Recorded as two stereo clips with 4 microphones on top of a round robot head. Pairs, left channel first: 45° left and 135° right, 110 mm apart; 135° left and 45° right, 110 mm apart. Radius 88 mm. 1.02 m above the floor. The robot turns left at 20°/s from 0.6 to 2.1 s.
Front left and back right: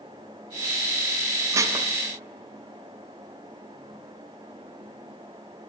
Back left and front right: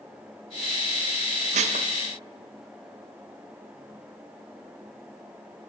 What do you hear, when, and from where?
1.5 s dishes clattering: 70° right, 0.5 m; by 1.9 s 75° right, 0.5 m